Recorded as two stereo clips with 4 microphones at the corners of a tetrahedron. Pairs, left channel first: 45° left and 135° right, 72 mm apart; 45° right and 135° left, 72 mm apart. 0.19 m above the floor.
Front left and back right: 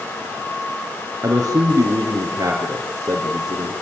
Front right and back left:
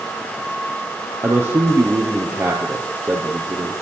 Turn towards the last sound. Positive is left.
turn(degrees=-175)